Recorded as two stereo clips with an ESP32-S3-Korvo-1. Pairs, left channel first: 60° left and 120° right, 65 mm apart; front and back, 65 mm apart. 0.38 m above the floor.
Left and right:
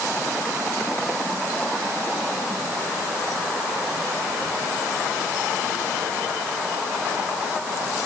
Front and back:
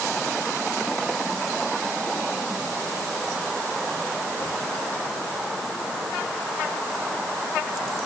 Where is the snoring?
I don't hear snoring.